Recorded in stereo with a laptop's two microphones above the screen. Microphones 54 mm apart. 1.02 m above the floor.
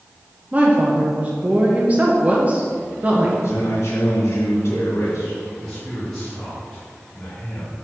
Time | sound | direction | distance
0.5 | a woman speaking | 30° right (ahead or behind) | 0.9 m
3.4 | a man speaking | 70° left (ahead or behind) | 2 m
5.6 | a man speaking | 5° left (ahead or behind) | 2.0 m